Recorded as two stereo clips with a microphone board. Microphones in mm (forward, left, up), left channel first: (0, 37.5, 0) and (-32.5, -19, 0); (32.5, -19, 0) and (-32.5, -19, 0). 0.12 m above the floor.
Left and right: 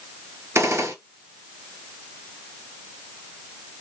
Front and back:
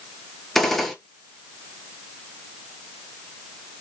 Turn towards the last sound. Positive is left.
turn(degrees=-85)